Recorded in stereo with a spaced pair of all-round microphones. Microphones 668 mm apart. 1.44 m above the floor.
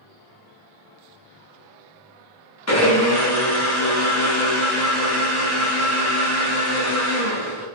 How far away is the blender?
About 0.8 m.